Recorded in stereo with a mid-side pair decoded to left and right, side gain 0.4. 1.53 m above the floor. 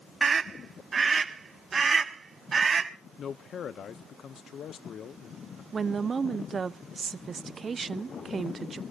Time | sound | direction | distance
0.2 | a scream | 45° right | 1.1 m
3.2 | a man speaking | 60° left | 1.3 m
5.7 | a woman speaking | 45° right | 1.0 m